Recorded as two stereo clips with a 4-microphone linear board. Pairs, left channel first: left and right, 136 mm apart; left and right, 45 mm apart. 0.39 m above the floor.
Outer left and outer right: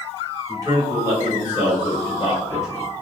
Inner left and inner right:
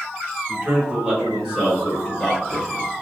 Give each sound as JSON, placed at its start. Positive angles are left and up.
{"t": 0.5, "sound": "a man speaking", "side_deg": -30, "distance_m": 1.0}